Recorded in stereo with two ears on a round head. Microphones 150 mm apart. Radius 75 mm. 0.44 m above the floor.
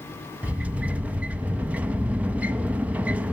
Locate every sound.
0.4 s a sliding door: 10° right (ahead or behind), 0.7 m